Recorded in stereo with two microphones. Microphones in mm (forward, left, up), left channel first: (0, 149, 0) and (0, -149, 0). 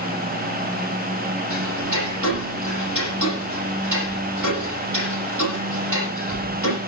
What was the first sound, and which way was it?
Ticking, 80° right.